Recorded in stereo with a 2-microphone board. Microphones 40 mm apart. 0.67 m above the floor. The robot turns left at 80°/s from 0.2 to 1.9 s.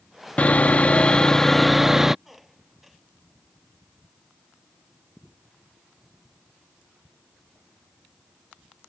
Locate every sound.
0.4 s sawing: 105° left; by 2.1 s 15° right
2.2 s a squeak: 5° right (ahead or behind)